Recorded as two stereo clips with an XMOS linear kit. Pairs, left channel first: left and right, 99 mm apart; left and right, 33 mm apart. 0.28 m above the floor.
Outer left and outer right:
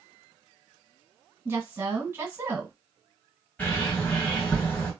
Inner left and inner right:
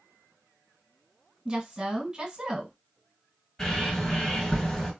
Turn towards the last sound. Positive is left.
turn(degrees=15)  # may be behind; listen again after turning